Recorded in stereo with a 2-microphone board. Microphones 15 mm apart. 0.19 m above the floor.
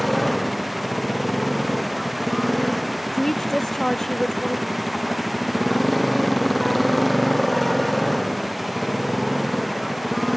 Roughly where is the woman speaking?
Left.